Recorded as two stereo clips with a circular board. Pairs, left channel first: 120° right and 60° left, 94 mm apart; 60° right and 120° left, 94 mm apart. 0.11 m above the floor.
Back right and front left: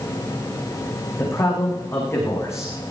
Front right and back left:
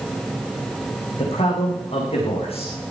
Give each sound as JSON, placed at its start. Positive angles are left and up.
{"t": 1.2, "sound": "a man speaking", "azimuth_deg": -60, "distance_m": 7.5}